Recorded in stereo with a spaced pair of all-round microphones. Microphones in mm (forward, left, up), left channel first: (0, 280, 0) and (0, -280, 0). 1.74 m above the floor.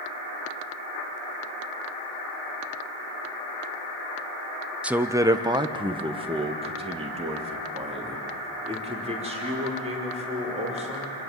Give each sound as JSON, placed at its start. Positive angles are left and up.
{"t": 4.8, "sound": "a man speaking", "side_deg": 0, "distance_m": 0.6}